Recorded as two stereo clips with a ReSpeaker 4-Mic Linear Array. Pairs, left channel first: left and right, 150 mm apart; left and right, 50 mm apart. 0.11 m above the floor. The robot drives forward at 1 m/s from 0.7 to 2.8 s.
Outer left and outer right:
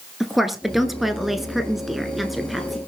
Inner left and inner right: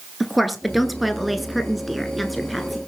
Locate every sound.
0.2 s a woman speaking: centre (ahead or behind), 1.6 m